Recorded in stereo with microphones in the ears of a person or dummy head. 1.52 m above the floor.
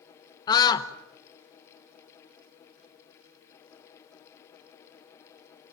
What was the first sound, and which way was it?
A scream, 20° left (ahead or behind).